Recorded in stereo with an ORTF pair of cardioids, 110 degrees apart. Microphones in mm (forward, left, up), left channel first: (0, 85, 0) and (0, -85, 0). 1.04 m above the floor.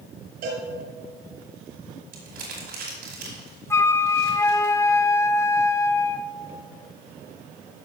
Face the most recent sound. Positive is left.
turn(degrees=15)